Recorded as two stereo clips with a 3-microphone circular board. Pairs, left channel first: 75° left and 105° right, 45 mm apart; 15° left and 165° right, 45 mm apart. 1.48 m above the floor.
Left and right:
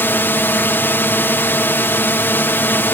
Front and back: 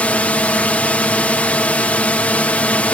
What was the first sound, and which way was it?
A drone, 65° left.